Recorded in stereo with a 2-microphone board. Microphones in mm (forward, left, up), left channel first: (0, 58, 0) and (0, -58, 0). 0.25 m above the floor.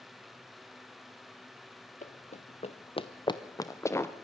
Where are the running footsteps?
80° left, 1.0 m; by 4.1 s 20° left (ahead or behind), 1.5 m.